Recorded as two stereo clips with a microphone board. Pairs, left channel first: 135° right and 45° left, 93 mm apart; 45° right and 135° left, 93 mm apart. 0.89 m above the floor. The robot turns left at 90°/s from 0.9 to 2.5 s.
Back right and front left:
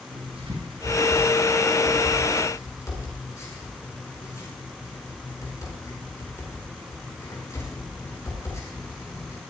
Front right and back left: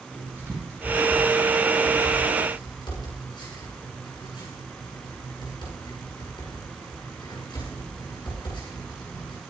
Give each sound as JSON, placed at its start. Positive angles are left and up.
{"t": 0.1, "sound": "writing", "azimuth_deg": 65, "distance_m": 9.0}